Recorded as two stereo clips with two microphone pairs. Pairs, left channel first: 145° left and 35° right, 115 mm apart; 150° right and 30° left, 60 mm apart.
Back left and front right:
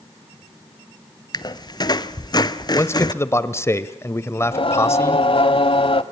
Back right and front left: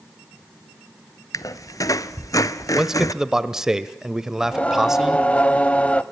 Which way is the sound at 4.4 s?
145° left.